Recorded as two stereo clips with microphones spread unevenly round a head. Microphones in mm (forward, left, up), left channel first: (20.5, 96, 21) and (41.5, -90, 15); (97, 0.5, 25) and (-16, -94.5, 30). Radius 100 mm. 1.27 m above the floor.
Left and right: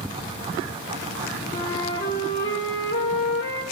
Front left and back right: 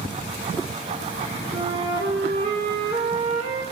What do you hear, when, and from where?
1.5 s a flute: 160° left, 3 m